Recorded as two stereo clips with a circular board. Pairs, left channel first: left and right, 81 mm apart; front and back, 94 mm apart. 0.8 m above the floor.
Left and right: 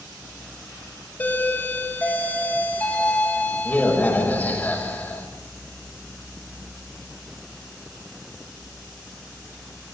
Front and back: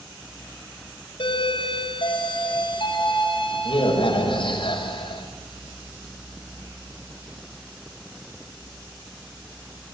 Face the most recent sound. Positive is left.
turn(degrees=20)